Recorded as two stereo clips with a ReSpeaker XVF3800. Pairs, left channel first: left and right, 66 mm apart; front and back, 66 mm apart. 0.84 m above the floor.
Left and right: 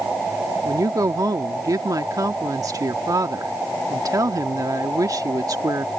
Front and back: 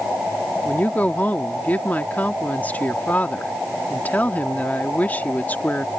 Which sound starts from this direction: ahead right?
A woman speaking, at 0.7 s.